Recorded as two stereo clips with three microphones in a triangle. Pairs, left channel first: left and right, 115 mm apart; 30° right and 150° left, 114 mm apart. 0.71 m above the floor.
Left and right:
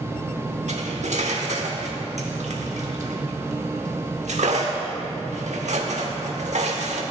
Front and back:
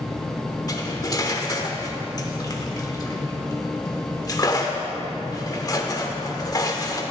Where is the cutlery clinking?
90° right, 1.0 m.